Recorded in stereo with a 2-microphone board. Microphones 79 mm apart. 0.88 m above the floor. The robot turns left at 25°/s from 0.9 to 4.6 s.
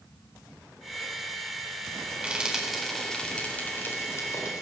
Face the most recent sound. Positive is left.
turn(degrees=45)  # may be behind; listen again after turning